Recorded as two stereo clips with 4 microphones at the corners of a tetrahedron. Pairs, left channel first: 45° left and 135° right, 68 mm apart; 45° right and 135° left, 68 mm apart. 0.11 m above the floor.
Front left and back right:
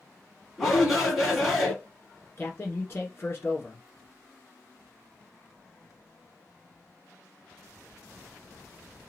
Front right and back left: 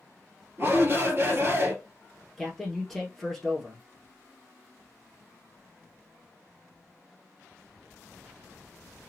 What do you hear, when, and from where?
0.6 s a shout: 145° left, 2 m
2.4 s a man speaking: 40° left, 1.5 m